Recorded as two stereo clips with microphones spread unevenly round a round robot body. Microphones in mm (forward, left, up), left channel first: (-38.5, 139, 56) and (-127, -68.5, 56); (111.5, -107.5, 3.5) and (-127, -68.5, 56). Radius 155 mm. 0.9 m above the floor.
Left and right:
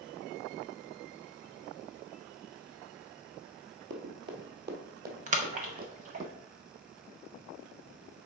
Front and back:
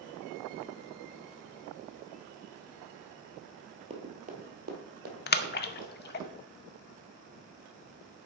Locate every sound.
3.9 s running footsteps: 135° right, 1.4 m; by 6.3 s 165° right, 3 m
5.3 s a splash: 55° right, 0.7 m